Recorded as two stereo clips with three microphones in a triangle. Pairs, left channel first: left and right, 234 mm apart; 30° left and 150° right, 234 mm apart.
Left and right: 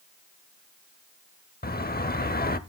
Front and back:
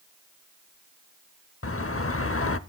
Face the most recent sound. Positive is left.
turn(degrees=45)